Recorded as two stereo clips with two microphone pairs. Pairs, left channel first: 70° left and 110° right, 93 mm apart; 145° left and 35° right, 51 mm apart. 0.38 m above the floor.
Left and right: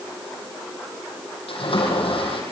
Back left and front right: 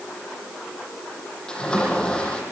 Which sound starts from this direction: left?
A splash, at 1.5 s.